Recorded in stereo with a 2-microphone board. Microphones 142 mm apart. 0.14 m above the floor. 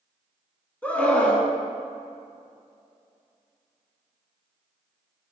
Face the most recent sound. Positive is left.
turn(degrees=10)  # may be behind; listen again after turning